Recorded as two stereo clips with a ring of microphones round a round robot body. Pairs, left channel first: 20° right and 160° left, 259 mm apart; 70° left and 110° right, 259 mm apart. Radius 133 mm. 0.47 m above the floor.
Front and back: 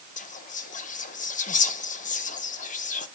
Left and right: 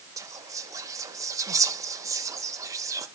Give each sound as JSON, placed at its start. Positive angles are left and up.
{"t": 0.2, "sound": "whispering", "azimuth_deg": -45, "distance_m": 0.7}